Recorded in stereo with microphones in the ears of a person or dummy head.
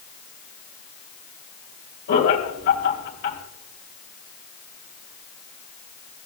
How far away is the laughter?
About 3 m.